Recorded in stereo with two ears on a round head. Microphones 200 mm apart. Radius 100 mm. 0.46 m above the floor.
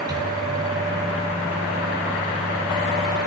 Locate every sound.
0.1 s a microwave: 15° right (ahead or behind), 3.5 m